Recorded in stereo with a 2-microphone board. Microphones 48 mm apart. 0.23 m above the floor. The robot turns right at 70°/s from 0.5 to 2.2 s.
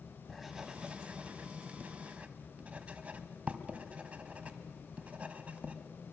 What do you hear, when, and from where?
0.3 s writing: 5° right (ahead or behind), 1.4 m; by 5.8 s 30° right (ahead or behind), 1.4 m